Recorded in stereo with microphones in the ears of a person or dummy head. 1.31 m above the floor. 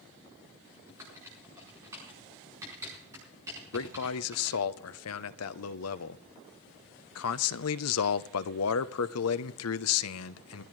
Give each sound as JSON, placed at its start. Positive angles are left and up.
{"t": 0.9, "sound": "typing on a keyboard", "side_deg": -15, "distance_m": 4.5}
{"t": 3.7, "sound": "a man speaking", "side_deg": 75, "distance_m": 0.7}